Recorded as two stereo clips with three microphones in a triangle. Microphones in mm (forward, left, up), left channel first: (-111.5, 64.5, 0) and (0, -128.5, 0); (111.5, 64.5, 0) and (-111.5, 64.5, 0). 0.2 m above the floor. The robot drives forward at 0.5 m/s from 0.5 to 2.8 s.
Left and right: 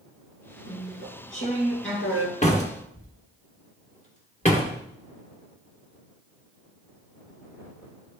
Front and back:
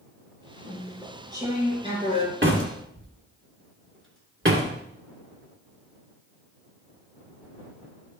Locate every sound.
0.7 s chewing: 100° left, 2 m; by 2.3 s 120° left, 2.5 m
2.4 s a door slam: 175° left, 1.7 m